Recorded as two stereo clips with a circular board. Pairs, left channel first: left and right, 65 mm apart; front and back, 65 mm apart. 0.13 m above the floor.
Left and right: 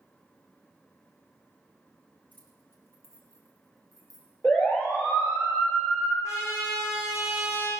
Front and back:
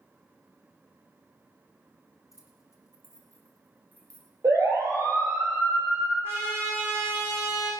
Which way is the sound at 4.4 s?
150° left.